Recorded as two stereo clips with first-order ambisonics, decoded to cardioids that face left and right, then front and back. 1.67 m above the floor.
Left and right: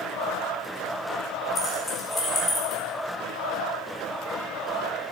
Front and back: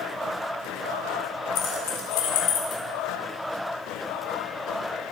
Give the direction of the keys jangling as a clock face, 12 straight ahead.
12 o'clock.